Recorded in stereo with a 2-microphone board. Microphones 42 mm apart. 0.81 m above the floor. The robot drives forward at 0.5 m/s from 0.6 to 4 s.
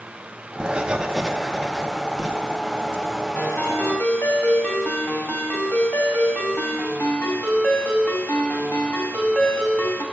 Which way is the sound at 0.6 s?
25° right (ahead or behind).